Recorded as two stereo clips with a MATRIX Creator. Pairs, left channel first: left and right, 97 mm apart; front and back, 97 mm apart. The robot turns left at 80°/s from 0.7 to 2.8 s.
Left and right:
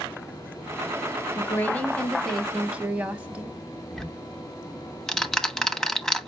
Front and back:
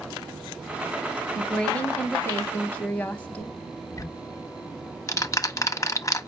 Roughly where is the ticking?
Ahead.